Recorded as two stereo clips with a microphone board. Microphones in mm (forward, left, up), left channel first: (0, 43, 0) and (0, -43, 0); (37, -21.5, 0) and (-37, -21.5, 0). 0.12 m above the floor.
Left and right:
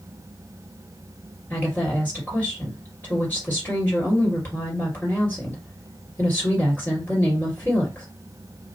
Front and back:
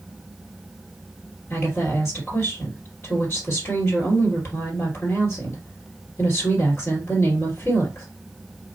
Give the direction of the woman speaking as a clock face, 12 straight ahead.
11 o'clock.